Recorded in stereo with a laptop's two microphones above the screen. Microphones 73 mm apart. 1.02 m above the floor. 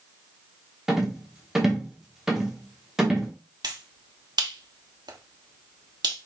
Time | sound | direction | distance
0.9 | a rattle | 5° right (ahead or behind) | 1.2 m
3.6 | a finger snap | 75° right (ahead or behind) | 1.2 m